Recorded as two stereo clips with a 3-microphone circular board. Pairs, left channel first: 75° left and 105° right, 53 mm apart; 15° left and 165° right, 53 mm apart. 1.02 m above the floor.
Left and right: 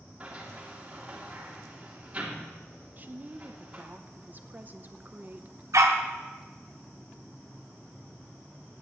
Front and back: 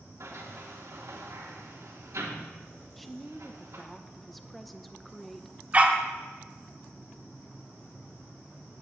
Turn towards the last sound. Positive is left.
turn(degrees=-105)